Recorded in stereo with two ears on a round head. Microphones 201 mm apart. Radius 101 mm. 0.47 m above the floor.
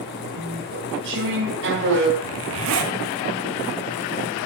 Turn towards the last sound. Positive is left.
turn(degrees=-70)  # may be behind; listen again after turning